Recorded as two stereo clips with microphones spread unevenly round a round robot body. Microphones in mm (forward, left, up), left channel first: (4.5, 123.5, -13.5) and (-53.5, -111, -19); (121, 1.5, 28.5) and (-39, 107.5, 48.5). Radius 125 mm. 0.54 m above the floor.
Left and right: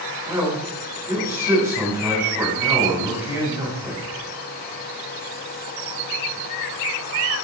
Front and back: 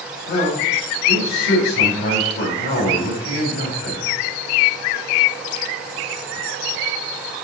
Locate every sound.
0.3 s a man speaking: 25° right, 4.5 m